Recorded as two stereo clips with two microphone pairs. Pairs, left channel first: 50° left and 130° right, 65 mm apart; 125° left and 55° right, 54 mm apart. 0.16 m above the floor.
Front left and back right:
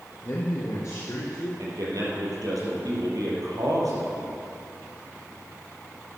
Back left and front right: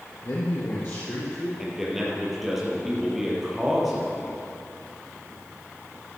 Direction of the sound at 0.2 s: 100° left.